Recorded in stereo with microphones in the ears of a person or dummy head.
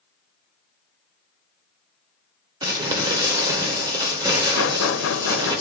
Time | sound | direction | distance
2.6 | crumpling | 20° right (ahead or behind) | 2.0 m
4.6 | knocking | 85° left | 0.9 m